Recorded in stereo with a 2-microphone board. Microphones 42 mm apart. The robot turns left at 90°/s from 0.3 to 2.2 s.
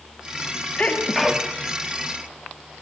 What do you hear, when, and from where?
0.8 s a sneeze: 40° left, 2 m; by 1.5 s 25° right, 2 m